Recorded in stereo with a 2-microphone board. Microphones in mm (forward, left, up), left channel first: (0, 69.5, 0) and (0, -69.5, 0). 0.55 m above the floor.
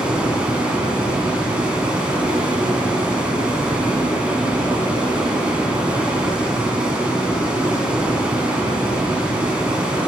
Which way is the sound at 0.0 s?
10° right (ahead or behind).